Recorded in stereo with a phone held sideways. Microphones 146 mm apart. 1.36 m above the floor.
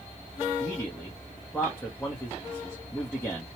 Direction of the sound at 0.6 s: 15° left (ahead or behind).